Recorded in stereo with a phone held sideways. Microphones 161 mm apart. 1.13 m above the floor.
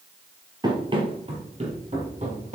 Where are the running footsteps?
25° right (ahead or behind), 1.7 m; by 2.6 s 50° right (ahead or behind), 3 m.